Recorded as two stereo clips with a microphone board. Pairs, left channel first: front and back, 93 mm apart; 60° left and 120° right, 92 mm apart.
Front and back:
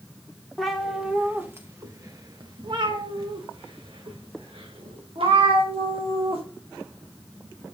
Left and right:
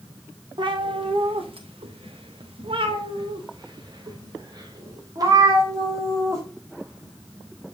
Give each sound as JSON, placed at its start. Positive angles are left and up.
{"t": 0.6, "sound": "a cat meowing", "azimuth_deg": -90, "distance_m": 2.0}